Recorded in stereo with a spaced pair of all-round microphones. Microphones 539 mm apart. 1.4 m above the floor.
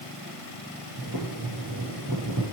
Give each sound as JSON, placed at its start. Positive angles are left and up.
{"t": 1.0, "sound": "boiling", "side_deg": -35, "distance_m": 6.0}